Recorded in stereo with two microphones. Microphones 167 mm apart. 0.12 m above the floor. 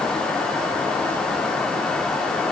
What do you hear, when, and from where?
Only background noise.